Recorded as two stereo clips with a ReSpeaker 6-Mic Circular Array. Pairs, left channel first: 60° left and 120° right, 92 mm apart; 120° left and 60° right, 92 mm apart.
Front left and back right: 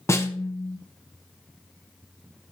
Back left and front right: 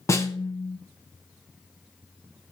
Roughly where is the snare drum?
Left.